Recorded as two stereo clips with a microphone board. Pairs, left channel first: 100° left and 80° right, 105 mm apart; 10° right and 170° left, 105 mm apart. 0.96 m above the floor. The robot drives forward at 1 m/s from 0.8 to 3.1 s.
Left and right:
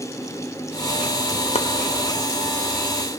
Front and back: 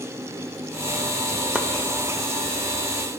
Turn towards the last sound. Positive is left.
turn(degrees=160)